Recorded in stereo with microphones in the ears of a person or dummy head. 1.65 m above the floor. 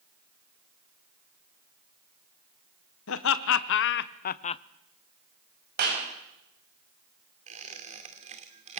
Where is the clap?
55° right (ahead or behind), 7 m.